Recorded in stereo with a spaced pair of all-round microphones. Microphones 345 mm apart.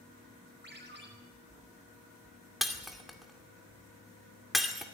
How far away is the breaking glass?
About 2 m.